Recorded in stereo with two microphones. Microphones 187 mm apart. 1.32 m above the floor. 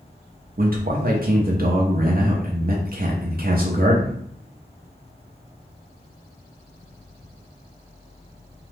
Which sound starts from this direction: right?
A man speaking, at 0.6 s.